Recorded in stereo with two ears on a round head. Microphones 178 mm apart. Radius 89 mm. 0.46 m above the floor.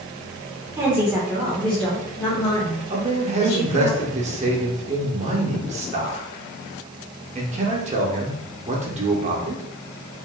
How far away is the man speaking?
About 0.9 m.